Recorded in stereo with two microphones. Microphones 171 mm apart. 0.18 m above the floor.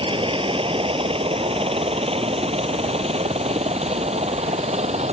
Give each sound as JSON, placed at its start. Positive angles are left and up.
{"t": 0.0, "sound": "a helicopter", "side_deg": -30}